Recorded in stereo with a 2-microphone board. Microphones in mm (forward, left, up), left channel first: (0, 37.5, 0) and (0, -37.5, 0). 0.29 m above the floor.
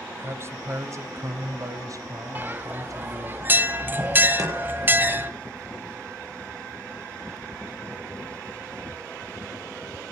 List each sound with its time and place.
0.2 s a man speaking: 35° right (ahead or behind), 1.3 m; by 3.4 s 55° right (ahead or behind), 2.5 m
2.4 s a bell: 25° right (ahead or behind), 1.2 m
4.4 s chopping: 55° right (ahead or behind), 7 m